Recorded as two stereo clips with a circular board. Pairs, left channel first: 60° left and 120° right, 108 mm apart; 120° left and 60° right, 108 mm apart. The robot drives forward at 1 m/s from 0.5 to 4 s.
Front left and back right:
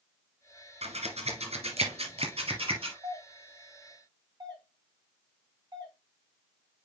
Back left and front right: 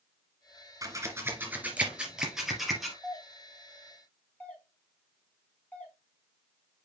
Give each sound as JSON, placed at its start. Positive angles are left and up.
{"t": 0.8, "sound": "scissors", "azimuth_deg": -120, "distance_m": 1.9}
{"t": 3.0, "sound": "a doorbell", "azimuth_deg": -165, "distance_m": 3.5}